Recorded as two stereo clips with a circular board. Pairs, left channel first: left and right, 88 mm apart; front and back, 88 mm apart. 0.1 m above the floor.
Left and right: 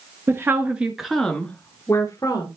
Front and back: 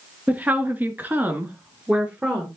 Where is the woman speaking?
125° right, 1.5 m; by 2.5 s 110° left, 1.7 m.